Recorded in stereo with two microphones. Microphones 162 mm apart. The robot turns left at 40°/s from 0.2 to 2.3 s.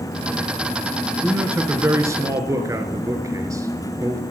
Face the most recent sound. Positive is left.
turn(degrees=-20)  # may be behind; listen again after turning